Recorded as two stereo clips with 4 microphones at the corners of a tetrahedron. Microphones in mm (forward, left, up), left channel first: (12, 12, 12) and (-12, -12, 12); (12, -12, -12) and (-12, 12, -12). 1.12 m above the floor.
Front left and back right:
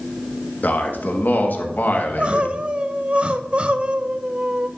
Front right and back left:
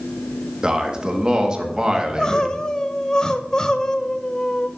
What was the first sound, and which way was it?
A man speaking, 70° left.